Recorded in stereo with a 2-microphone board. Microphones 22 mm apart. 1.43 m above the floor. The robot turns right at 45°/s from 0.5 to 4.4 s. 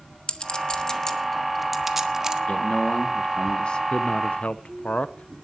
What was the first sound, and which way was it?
A clink, 45° left (ahead or behind).